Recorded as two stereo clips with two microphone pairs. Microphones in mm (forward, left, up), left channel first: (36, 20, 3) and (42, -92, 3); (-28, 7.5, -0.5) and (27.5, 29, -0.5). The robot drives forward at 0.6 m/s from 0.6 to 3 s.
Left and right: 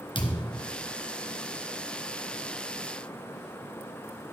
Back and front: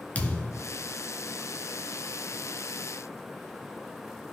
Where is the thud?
135° left, 2.0 m.